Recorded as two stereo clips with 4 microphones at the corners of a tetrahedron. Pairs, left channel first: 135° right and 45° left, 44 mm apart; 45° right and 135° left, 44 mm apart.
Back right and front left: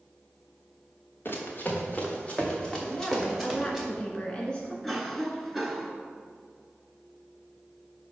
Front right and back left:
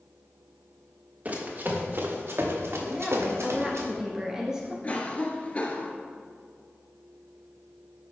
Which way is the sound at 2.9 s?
170° right.